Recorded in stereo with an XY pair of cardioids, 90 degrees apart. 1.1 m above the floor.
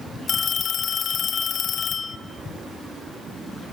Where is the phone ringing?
70° left, 2.5 m.